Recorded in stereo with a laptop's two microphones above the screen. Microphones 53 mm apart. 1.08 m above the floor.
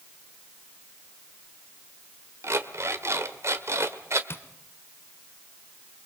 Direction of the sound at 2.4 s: 60° right (ahead or behind).